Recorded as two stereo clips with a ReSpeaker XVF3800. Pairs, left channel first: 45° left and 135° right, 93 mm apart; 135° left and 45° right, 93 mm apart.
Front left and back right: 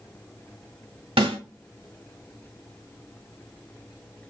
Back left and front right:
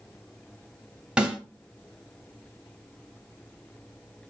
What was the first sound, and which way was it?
A snare drum, 125° right.